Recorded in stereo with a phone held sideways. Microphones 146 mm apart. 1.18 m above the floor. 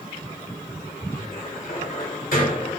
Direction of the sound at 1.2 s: 80° left.